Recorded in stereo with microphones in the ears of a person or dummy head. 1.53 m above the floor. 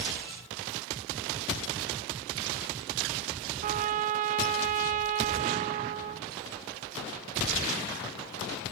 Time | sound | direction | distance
3.6 | a trumpet | 45° right (ahead or behind) | 0.6 m